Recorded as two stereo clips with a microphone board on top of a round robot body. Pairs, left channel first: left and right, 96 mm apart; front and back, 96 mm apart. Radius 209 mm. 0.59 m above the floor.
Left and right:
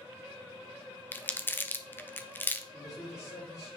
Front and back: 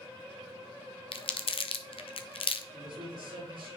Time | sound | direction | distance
1.1 | crumpling | 20° left | 0.8 m
2.7 | a man speaking | 145° left | 4.5 m